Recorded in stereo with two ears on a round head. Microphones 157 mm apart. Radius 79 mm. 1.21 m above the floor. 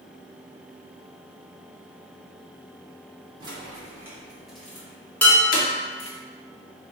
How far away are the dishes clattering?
About 1.2 m.